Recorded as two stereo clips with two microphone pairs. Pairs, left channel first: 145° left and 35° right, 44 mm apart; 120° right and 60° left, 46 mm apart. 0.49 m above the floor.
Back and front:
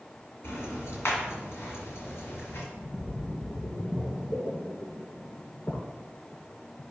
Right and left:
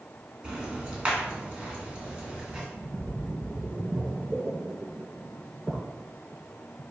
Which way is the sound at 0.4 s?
125° left.